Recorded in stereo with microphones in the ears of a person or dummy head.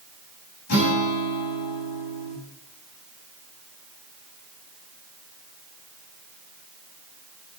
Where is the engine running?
I don't hear an engine running.